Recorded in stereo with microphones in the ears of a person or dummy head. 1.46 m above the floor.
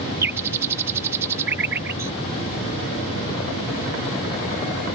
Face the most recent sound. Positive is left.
turn(degrees=-15)  # may be behind; listen again after turning